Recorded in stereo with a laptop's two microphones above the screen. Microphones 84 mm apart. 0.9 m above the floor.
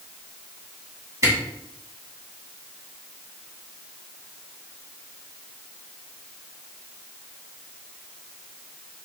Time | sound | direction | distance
1.2 | a camera shutter | 40° right (ahead or behind) | 2.5 m